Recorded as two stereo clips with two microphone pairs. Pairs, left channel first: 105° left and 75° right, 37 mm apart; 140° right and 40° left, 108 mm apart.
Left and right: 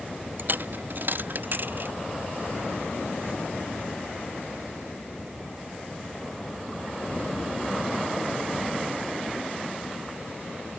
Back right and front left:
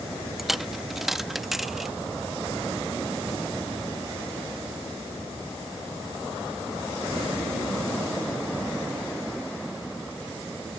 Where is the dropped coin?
50° right.